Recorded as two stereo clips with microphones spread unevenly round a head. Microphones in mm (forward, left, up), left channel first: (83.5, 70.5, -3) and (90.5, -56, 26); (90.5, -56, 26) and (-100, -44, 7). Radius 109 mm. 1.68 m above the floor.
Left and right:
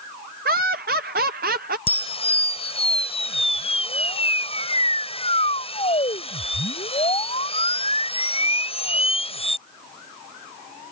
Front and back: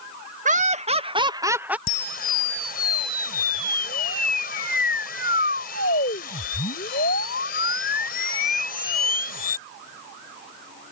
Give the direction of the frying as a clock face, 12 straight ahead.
I don't hear frying.